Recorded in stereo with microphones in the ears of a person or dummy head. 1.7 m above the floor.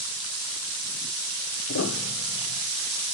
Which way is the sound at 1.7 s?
80° left.